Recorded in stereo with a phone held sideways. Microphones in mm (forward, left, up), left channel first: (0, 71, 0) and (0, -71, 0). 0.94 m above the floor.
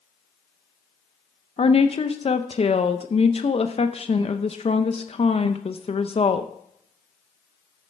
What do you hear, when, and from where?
1.6 s a woman speaking: 45° left (ahead or behind), 0.7 m